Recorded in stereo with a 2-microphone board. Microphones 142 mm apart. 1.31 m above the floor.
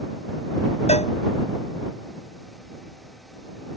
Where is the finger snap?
I don't hear a finger snap.